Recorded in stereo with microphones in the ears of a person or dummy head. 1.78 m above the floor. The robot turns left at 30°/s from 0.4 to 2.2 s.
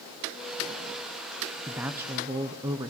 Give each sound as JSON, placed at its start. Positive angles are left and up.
{"t": 1.7, "sound": "a woman speaking", "side_deg": -10, "distance_m": 0.6}